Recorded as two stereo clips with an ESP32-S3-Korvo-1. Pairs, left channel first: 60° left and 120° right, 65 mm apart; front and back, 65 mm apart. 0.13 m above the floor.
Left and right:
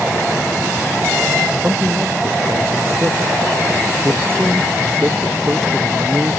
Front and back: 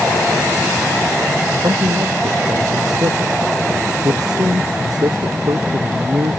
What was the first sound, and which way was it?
A man speaking, 175° right.